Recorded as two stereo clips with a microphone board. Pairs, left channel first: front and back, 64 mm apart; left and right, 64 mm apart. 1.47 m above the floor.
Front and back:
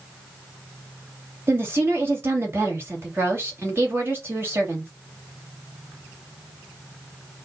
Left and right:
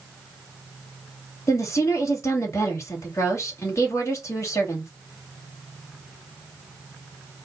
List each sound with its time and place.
1.5 s a woman speaking: 130° left, 2.5 m